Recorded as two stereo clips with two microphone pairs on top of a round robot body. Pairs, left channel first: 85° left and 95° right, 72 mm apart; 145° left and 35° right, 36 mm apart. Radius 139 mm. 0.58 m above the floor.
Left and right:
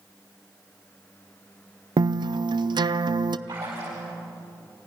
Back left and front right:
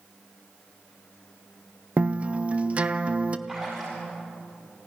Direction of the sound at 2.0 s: 90° right.